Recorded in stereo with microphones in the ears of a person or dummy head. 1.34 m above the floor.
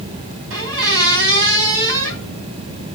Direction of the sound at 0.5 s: 75° right (ahead or behind).